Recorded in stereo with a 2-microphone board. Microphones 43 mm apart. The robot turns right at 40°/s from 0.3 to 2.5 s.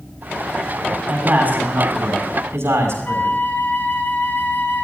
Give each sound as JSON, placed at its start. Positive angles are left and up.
{"t": 1.1, "sound": "a man speaking", "azimuth_deg": -150, "distance_m": 5.5}
{"t": 3.0, "sound": "a flute", "side_deg": 50, "distance_m": 2.0}